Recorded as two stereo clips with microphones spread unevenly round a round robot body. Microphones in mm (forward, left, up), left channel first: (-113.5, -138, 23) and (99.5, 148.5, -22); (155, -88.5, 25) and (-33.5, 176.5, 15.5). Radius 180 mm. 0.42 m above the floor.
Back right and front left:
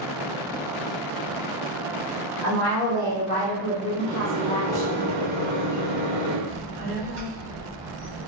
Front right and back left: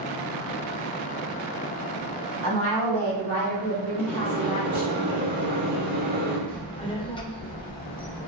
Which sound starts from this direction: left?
A microwave, at 4.0 s.